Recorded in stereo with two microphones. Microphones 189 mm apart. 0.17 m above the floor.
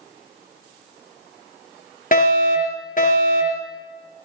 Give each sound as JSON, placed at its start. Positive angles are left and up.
{"t": 2.1, "sound": "a fire alarm", "side_deg": 45, "distance_m": 4.5}